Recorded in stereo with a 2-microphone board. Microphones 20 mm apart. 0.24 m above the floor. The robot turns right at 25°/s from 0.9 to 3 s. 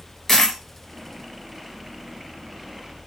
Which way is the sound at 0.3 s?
5° left (ahead or behind).